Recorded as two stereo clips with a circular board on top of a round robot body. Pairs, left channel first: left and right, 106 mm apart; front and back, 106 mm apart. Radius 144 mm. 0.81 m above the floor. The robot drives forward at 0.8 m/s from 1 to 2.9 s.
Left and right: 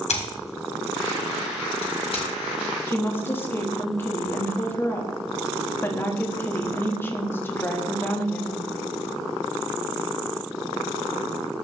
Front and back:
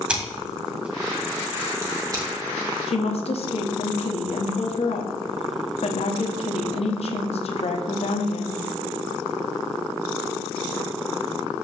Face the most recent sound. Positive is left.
turn(degrees=20)